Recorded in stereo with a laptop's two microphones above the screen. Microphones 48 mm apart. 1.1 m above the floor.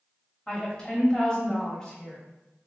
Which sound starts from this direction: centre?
A woman speaking, at 0.5 s.